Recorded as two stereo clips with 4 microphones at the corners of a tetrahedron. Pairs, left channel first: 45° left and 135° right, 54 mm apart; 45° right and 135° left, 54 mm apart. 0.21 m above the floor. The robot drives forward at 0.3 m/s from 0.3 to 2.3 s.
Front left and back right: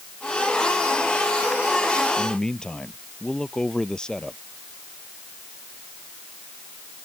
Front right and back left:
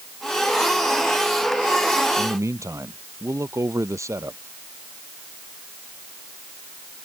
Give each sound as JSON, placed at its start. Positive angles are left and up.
{"t": 2.2, "sound": "a man speaking", "azimuth_deg": 120}